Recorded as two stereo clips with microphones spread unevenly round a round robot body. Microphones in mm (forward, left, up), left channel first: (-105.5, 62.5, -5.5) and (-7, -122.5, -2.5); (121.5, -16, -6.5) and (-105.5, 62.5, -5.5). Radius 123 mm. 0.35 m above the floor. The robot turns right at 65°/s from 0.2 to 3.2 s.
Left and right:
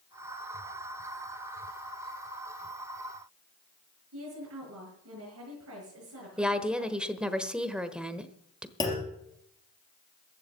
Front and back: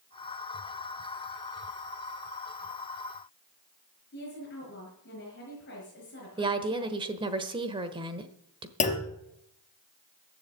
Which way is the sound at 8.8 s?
40° left.